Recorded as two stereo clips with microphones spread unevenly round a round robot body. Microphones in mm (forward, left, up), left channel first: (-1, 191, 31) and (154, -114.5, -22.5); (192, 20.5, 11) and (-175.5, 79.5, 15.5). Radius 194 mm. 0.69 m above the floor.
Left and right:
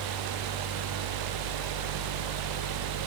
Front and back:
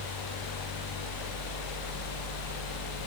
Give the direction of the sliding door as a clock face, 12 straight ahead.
No sliding door in this recording.